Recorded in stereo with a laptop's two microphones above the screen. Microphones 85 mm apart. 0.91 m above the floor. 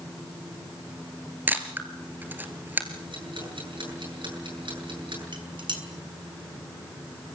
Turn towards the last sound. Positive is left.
turn(degrees=-75)  # may be behind; listen again after turning